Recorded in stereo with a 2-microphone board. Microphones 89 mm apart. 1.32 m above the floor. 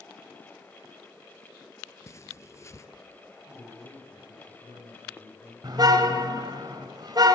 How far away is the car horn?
About 2.5 m.